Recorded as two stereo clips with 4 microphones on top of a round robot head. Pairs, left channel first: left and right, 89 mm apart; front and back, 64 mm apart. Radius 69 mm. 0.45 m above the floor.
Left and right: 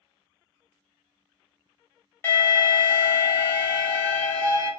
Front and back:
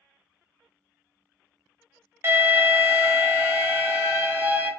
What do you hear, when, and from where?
2.2 s an alarm: 140° left, 1.5 m